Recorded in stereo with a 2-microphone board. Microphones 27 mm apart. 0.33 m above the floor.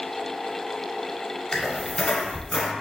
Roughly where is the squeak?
Left.